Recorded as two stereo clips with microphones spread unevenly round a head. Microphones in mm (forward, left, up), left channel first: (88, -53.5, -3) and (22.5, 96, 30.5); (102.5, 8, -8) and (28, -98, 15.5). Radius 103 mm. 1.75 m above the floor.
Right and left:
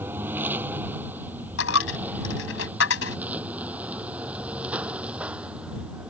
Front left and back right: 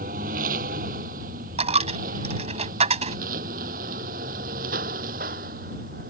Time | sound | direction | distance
0.0 | a lawn mower | 165° right | ?
1.6 | a dropped coin | 105° right | ?